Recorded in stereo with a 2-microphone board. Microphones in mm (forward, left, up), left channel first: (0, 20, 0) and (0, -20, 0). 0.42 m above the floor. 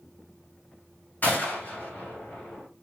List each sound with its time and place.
1.2 s a gunshot: 50° left (ahead or behind), 2.5 m